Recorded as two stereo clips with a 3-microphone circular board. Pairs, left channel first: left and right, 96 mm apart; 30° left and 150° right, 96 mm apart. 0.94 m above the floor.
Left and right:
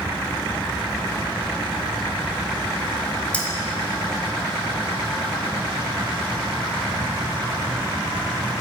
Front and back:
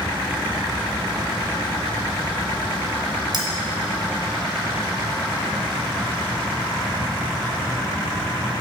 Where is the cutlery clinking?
165° left, 0.8 m.